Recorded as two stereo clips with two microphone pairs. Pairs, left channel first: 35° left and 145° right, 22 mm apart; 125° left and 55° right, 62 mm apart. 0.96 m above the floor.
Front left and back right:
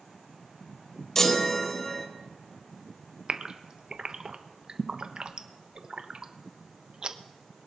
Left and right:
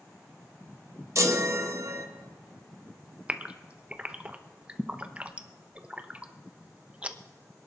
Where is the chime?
30° right, 1.3 m.